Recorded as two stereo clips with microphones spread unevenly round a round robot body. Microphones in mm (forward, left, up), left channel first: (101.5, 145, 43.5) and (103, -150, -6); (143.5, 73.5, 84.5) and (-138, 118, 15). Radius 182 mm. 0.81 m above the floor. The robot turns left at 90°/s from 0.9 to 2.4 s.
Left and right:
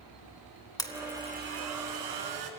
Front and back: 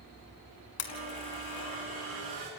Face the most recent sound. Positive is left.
turn(degrees=-120)